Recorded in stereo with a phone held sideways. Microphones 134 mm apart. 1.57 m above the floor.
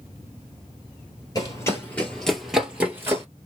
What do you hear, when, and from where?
1.4 s running footsteps: 25° left (ahead or behind), 1.7 m; by 3.2 s 20° right (ahead or behind), 1.6 m